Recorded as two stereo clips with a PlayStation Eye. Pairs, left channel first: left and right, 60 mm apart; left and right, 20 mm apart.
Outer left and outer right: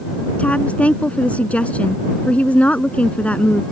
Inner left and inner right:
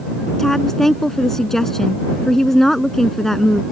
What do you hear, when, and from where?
0.4 s a woman speaking: 20° left (ahead or behind)